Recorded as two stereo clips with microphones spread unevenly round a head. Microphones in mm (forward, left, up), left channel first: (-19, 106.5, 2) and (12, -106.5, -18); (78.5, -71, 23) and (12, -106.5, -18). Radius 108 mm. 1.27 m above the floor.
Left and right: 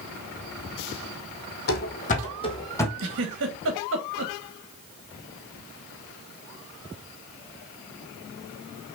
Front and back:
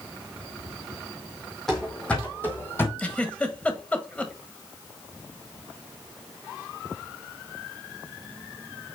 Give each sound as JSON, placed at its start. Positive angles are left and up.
{"t": 1.7, "sound": "running footsteps", "azimuth_deg": 90, "distance_m": 1.9}
{"t": 3.0, "sound": "a giggle", "azimuth_deg": -45, "distance_m": 1.7}